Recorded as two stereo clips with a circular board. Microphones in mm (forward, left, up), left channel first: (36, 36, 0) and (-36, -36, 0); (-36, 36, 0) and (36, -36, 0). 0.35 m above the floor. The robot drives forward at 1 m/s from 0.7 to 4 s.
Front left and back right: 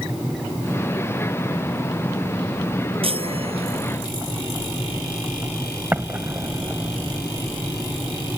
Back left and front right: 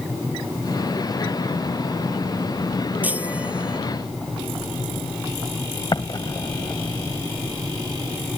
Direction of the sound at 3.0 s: 120° right.